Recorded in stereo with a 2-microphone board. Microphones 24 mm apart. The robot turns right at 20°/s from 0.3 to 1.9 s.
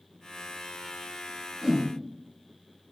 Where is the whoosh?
Centre (ahead or behind), 0.7 m; by 1.9 s 5° right (ahead or behind), 0.7 m.